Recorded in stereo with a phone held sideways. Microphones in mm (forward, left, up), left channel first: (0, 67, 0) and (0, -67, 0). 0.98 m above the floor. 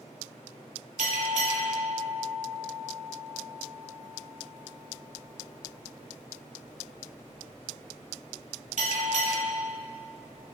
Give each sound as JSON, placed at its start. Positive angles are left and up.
{"t": 1.0, "sound": "a bell", "side_deg": -65, "distance_m": 1.5}